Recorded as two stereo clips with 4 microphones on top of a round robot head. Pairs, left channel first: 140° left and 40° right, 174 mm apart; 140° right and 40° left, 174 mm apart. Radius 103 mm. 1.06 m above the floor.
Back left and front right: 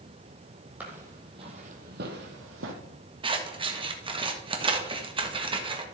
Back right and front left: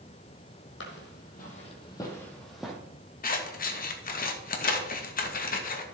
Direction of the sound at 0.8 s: 120° right.